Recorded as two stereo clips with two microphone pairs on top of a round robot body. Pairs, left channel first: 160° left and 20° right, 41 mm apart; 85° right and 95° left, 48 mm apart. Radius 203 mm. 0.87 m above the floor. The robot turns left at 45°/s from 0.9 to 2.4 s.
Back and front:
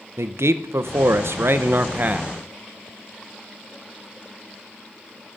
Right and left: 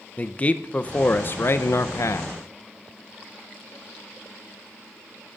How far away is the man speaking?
About 0.6 m.